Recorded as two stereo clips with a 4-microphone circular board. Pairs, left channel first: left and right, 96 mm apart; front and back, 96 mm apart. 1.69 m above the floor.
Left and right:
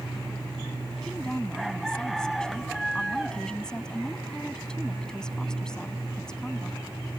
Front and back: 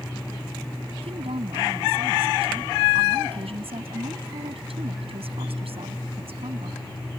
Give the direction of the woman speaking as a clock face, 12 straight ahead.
6 o'clock.